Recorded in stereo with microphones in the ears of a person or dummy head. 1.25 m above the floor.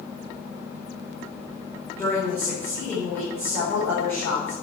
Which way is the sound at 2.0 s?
15° left (ahead or behind).